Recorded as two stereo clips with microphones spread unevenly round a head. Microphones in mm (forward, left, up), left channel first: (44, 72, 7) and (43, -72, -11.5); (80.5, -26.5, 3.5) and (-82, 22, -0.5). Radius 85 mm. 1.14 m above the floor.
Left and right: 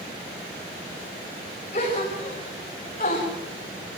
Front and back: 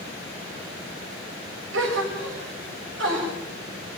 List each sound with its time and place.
1.7 s a gasp: 150° left, 6.5 m